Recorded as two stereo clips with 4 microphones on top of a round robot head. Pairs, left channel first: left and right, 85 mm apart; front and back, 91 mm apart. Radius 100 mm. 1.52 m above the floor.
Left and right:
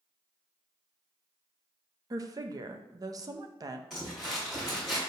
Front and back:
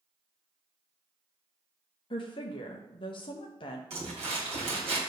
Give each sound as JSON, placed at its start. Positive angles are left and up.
{"t": 2.1, "sound": "a woman speaking", "azimuth_deg": -45, "distance_m": 0.7}
{"t": 3.9, "sound": "crumpling", "azimuth_deg": -175, "distance_m": 2.5}